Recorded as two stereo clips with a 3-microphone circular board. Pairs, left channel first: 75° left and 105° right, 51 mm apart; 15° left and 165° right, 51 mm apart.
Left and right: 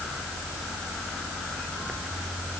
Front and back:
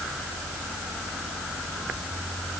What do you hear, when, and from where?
Only background noise.